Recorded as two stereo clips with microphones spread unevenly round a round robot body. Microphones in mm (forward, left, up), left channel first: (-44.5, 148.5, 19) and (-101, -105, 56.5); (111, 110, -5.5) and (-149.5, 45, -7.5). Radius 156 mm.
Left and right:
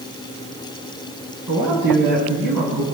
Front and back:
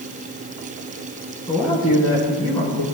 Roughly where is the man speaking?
Ahead right.